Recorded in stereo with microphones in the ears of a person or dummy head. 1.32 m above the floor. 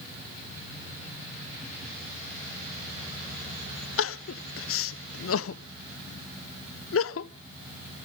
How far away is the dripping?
I don't hear dripping.